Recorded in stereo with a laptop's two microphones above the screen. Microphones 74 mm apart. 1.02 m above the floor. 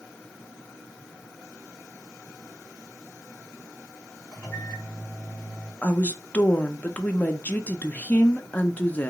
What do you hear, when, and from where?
4.3 s a microwave: 20° left (ahead or behind), 1.4 m
5.8 s a woman speaking: 20° left (ahead or behind), 0.6 m